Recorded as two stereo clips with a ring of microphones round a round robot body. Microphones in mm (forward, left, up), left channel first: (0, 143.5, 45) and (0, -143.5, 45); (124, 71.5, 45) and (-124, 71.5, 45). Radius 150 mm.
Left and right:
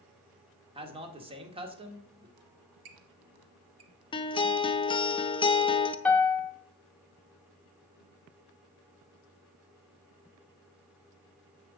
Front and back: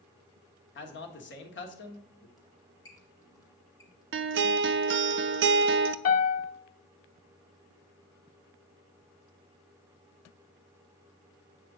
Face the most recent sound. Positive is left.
turn(degrees=5)